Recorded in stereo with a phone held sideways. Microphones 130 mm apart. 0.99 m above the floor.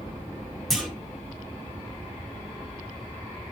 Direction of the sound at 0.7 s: Centre (ahead or behind).